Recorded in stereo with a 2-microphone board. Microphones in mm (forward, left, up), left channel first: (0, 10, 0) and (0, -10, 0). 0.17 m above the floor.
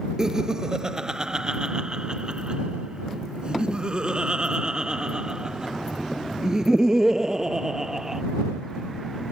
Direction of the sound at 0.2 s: 30° right (ahead or behind).